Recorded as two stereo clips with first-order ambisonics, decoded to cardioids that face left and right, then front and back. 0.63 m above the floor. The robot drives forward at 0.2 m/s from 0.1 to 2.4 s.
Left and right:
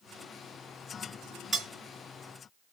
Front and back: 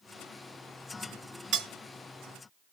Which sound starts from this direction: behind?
Cutlery clinking, at 1.5 s.